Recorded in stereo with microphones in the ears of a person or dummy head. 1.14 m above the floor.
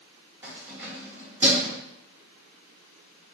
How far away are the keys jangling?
About 1.9 m.